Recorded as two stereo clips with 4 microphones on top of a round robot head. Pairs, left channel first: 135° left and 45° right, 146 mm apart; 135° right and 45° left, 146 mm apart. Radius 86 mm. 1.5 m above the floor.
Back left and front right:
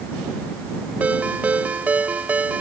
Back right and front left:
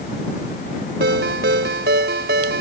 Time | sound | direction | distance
1.0 | a ringtone | 35° left | ?